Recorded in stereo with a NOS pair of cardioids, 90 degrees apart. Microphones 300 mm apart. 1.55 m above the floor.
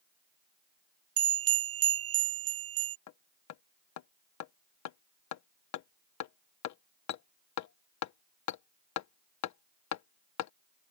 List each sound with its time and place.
1.2 s a bell: 50° right
3.1 s hammering: 65° left